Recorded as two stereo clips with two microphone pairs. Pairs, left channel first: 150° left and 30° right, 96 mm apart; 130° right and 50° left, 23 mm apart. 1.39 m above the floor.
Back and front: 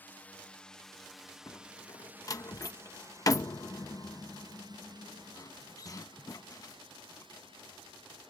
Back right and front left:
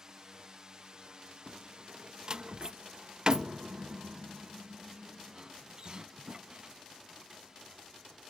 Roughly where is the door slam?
Left.